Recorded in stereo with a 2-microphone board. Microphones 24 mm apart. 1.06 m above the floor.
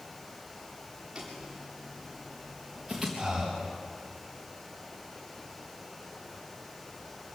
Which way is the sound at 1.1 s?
20° right (ahead or behind).